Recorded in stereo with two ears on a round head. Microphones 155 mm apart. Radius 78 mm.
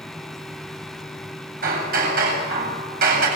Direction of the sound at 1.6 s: 55° right (ahead or behind).